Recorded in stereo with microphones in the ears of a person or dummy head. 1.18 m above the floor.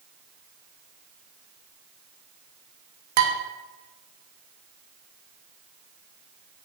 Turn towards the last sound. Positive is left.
turn(degrees=-50)  # may be behind; listen again after turning